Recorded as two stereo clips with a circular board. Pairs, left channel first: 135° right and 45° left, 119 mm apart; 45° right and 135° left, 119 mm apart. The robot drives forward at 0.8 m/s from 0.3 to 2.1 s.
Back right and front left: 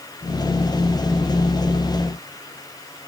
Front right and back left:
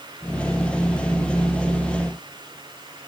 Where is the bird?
I don't hear a bird.